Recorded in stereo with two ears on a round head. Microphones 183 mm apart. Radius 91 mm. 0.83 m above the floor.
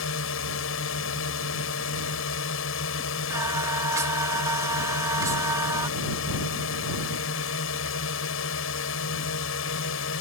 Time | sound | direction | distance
0.0 | a drone | 70° left (ahead or behind) | ?
3.3 | singing | 15° right (ahead or behind) | ?